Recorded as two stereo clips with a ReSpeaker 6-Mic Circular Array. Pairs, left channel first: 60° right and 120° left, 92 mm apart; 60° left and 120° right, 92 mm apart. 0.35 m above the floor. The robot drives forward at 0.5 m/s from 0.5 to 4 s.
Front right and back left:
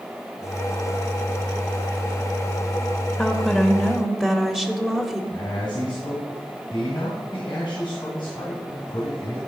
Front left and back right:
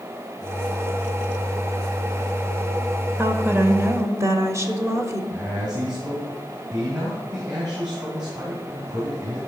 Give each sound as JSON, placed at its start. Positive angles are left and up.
{"t": 3.2, "sound": "a woman speaking", "azimuth_deg": -130, "distance_m": 0.9}
{"t": 5.3, "sound": "a man speaking", "azimuth_deg": -85, "distance_m": 2.5}